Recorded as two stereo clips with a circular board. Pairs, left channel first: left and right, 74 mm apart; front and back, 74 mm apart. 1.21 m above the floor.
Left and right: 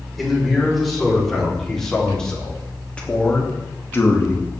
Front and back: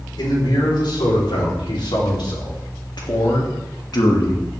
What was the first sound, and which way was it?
A man speaking, straight ahead.